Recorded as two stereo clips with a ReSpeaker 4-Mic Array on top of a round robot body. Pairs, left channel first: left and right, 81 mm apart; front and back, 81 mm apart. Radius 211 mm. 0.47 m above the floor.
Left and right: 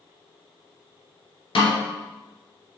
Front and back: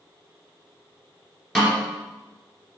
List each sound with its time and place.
1.6 s a snare drum: 85° left, 2.5 m